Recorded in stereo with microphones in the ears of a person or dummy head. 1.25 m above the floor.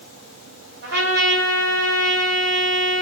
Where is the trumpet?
75° right (ahead or behind), 3.5 m.